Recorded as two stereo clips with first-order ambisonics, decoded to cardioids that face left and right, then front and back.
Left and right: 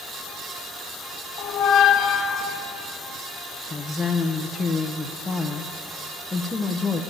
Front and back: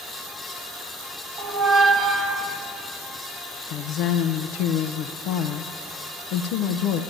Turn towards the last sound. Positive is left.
turn(degrees=10)